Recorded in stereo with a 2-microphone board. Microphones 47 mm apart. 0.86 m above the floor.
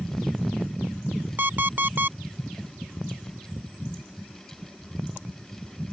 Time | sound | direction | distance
1.4 | an alarm clock | 45° right (ahead or behind) | ?